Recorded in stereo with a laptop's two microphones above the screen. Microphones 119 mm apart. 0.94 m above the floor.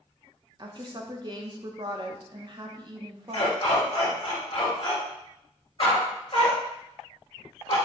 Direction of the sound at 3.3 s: 50° left (ahead or behind).